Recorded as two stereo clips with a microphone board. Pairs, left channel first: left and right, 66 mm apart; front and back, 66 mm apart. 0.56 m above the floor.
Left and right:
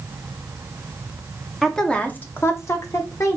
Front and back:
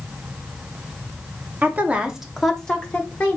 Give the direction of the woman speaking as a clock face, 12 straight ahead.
6 o'clock.